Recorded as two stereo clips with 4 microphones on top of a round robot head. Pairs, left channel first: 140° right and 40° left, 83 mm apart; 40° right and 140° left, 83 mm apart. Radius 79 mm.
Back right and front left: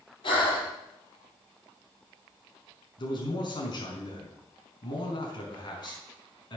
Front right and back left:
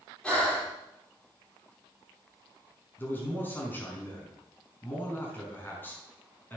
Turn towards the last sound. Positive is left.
turn(degrees=-110)